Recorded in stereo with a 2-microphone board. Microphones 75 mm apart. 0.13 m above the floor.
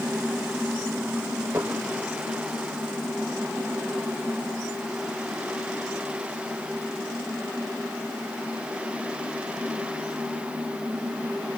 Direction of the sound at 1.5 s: 30° right (ahead or behind).